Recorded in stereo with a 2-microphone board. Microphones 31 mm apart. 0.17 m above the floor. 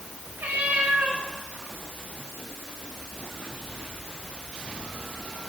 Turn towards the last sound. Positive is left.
turn(degrees=-90)